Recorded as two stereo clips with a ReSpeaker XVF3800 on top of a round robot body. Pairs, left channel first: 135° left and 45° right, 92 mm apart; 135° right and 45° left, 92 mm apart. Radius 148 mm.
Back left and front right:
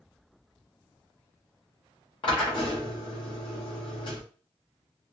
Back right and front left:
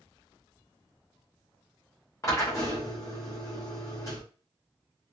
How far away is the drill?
About 0.7 m.